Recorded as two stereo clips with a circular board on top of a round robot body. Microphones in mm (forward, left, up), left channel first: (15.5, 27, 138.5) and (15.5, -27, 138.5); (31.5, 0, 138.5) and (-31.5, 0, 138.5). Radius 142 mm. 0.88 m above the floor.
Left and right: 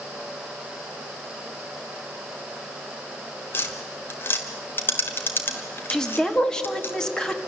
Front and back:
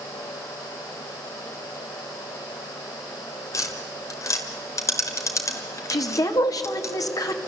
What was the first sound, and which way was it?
Tapping, 40° left.